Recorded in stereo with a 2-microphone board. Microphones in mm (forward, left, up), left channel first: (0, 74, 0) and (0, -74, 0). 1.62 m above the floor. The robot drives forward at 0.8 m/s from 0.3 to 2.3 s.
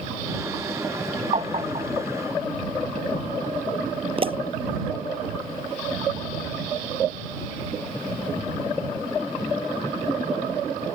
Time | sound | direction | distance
1.3 | tapping | 45° right (ahead or behind) | ?
4.2 | a pop | 40° right (ahead or behind) | ?